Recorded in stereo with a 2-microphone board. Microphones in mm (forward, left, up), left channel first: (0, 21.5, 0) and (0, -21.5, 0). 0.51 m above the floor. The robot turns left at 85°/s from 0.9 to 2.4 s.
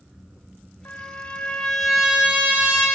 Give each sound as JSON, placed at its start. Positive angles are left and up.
{"t": 0.8, "sound": "a trumpet", "azimuth_deg": 90, "distance_m": 2.5}